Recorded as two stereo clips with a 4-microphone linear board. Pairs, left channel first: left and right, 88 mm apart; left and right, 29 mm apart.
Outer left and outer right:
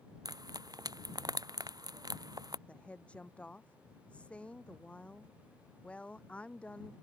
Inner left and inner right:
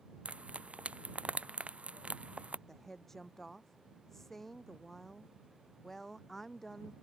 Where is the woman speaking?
10° left (ahead or behind).